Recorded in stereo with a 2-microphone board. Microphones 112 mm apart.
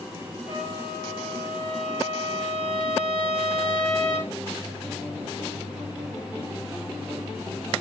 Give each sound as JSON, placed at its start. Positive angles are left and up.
{"t": 0.5, "sound": "a trumpet", "side_deg": 70, "distance_m": 8.5}